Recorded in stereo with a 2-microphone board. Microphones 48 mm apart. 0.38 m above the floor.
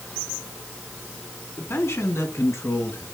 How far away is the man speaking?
About 3.5 m.